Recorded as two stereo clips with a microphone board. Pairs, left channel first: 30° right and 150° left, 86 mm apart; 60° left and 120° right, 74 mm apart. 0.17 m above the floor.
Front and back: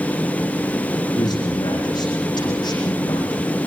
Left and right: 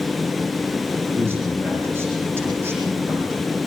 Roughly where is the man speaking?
Ahead right.